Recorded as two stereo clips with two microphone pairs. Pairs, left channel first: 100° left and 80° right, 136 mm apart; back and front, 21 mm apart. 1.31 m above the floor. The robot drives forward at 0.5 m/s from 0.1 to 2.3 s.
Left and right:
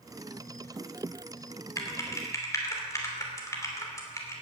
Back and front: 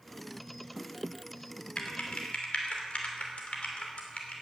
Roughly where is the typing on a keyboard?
Behind.